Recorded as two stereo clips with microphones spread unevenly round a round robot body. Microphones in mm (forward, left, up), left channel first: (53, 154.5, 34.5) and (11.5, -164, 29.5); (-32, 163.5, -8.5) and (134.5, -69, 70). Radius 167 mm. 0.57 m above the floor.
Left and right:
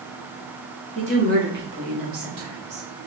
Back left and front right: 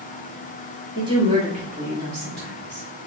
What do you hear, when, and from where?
0.9 s a woman speaking: 145° right, 1.3 m; by 2.9 s 115° right, 1.8 m